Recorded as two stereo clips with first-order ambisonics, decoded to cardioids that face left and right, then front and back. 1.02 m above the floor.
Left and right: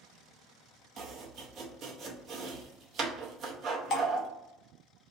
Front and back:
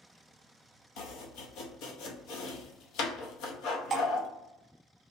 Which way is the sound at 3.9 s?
115° left.